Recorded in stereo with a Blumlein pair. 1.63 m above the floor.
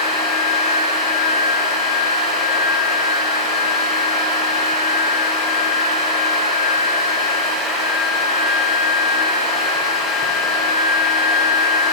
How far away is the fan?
About 1.2 m.